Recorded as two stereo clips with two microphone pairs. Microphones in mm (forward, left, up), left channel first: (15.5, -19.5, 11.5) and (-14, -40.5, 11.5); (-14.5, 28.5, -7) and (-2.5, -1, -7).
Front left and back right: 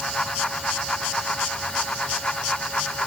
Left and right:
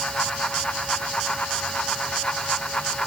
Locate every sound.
Only background noise.